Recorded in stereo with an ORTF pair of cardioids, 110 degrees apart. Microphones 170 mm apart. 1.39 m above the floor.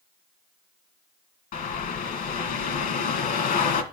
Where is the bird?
55° left, 1.8 m.